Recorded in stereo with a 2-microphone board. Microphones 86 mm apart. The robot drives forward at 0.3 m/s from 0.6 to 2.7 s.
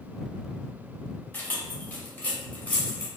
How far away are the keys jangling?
About 0.9 m.